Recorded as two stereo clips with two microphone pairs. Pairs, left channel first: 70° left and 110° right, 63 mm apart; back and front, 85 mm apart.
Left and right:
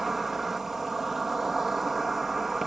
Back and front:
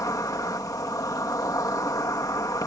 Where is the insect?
170° left.